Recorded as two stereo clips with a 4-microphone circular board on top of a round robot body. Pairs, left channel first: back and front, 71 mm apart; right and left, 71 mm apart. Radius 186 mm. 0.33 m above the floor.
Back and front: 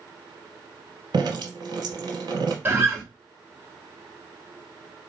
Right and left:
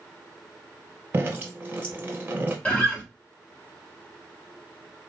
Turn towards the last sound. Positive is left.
turn(degrees=-35)